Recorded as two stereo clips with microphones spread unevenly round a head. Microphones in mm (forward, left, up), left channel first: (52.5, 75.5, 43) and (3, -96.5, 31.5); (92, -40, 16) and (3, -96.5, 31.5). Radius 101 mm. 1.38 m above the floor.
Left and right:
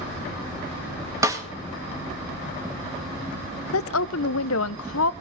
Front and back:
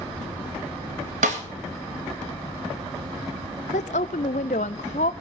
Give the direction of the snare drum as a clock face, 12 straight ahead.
6 o'clock.